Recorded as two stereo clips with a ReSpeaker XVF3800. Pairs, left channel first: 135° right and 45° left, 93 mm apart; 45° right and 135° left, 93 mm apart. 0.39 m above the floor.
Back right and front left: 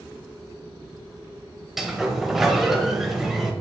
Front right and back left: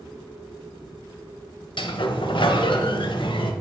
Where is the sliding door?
40° right, 1.1 m.